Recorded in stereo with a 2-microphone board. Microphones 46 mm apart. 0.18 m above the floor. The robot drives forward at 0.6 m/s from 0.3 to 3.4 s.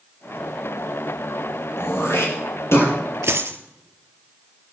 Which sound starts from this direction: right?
A dropped coin, at 3.2 s.